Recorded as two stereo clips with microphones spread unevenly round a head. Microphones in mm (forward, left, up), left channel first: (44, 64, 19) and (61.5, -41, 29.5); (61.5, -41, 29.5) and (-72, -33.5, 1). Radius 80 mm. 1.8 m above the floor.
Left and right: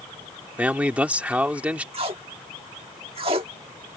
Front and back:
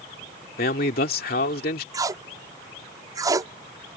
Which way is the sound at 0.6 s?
5° right.